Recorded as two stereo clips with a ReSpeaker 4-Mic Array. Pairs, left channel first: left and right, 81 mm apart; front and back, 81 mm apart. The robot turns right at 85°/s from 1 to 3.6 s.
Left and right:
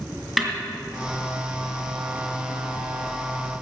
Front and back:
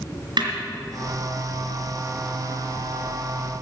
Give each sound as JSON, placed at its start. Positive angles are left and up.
{"t": 0.4, "sound": "a snare drum", "azimuth_deg": -175, "distance_m": 3.0}